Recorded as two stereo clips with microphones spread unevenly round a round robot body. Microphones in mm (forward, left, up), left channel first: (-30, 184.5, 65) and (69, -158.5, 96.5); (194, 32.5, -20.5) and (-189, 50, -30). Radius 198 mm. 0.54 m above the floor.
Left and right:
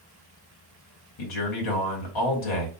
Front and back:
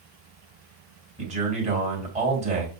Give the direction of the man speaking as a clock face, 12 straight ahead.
8 o'clock.